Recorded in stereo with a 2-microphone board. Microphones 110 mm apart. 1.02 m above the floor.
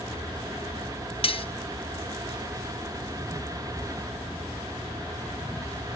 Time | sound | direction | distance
1.2 | cutlery clinking | 55° left (ahead or behind) | 0.6 m